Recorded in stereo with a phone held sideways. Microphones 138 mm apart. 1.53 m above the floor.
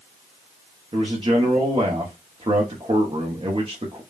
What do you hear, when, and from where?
0.9 s a man speaking: 40° right (ahead or behind), 0.9 m